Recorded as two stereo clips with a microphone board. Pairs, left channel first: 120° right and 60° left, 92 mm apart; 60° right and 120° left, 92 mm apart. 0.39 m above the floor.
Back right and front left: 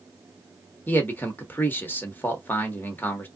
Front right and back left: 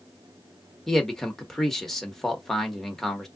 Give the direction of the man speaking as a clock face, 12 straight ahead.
5 o'clock.